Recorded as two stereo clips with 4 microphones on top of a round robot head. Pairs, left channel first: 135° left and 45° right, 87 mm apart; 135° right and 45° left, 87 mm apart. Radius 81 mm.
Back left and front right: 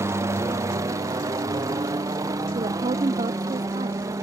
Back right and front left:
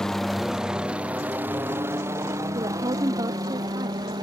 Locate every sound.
0.0 s a helicopter: 55° right; by 4.2 s 5° left
2.5 s a woman speaking: 10° right